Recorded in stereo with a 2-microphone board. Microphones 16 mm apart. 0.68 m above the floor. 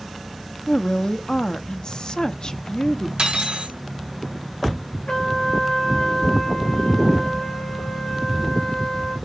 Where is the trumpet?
60° left (ahead or behind), 2.5 m.